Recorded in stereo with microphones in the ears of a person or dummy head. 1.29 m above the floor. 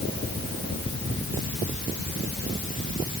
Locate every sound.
Only background noise.